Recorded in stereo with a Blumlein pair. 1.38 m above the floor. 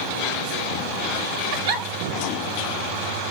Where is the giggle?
50° right, 4.5 m.